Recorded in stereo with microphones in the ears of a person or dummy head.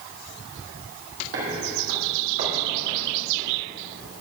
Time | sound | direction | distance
1.3 | footsteps | 55° right (ahead or behind) | 2.0 m